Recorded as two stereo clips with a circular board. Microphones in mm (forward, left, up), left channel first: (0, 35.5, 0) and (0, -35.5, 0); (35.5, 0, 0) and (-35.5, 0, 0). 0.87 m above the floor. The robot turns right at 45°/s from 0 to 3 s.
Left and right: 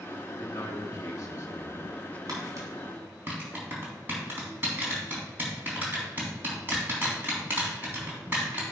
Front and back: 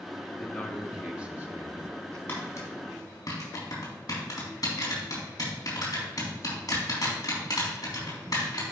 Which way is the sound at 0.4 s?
70° left.